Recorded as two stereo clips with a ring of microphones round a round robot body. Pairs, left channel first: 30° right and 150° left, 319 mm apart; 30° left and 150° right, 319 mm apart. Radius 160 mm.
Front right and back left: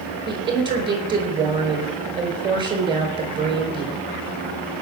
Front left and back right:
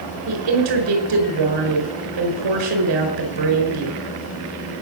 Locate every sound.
0.3 s a woman speaking: 135° right, 4.5 m